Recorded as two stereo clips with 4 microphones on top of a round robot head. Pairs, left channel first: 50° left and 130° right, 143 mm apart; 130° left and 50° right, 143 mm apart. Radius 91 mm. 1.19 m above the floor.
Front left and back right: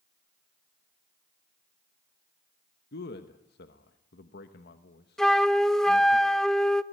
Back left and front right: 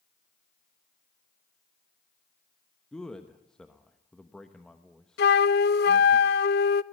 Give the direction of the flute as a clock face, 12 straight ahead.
7 o'clock.